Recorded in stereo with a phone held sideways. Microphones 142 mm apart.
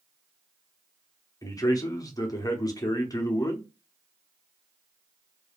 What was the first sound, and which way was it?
A man speaking, 25° left (ahead or behind).